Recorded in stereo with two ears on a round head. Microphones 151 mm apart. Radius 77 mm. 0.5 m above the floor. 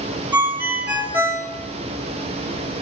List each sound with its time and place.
0.3 s a ringtone: 10° right (ahead or behind), 1.0 m